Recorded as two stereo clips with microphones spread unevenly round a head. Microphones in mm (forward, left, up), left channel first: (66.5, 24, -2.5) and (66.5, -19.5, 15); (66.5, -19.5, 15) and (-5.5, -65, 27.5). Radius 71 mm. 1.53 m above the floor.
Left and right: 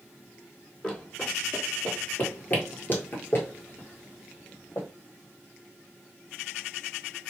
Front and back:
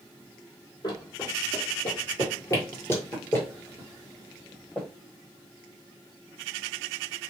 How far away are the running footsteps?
About 2.0 m.